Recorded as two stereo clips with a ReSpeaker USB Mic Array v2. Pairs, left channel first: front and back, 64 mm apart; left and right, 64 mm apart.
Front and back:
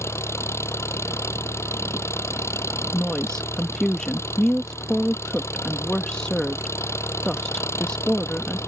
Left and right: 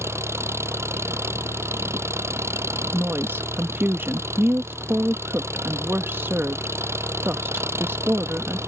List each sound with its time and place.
0.0 s an engine running: 45° right
2.9 s a woman speaking: 70° right